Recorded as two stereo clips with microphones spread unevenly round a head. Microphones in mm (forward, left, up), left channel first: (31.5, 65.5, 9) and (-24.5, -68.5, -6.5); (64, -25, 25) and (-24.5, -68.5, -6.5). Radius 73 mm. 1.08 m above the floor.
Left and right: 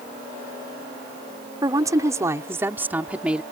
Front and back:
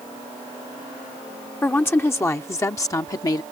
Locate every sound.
1.6 s a woman speaking: 45° right; by 3.4 s 25° right